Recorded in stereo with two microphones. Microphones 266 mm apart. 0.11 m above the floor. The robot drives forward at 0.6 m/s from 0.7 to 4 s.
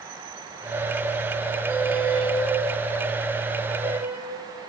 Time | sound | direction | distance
1.7 | a squeak | 5° right (ahead or behind) | 3 m